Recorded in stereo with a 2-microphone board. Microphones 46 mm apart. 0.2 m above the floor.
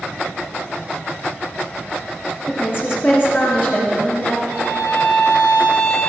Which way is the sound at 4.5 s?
70° left (ahead or behind).